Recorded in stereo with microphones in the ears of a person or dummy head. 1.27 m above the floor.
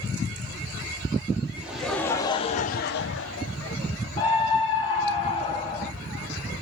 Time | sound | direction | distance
1.6 | laughter | 5° right (ahead or behind) | 1.2 m
4.2 | a scream | 30° left (ahead or behind) | 0.8 m